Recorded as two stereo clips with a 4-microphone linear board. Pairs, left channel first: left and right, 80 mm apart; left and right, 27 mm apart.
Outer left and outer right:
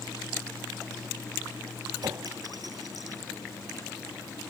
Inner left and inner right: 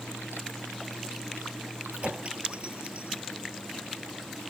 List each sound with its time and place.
1.9 s a clink: 50° right (ahead or behind)